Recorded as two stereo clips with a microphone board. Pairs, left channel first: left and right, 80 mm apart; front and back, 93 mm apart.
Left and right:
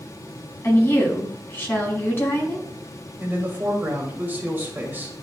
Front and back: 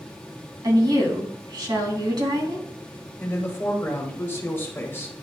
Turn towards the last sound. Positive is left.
turn(degrees=-40)